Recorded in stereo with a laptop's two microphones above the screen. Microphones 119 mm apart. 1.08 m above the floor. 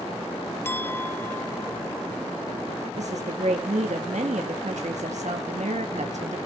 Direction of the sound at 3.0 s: 75° right (ahead or behind).